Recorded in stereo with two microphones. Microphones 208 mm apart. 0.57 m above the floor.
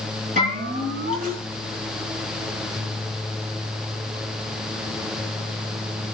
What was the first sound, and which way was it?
A bell, 40° right (ahead or behind).